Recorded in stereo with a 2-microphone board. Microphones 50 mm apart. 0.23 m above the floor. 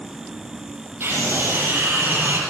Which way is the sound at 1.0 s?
60° right (ahead or behind).